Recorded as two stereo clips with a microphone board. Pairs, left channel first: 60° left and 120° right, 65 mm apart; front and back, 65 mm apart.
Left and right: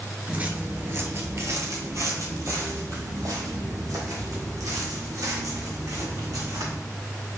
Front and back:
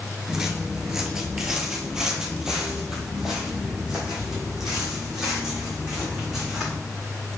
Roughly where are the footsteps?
Right.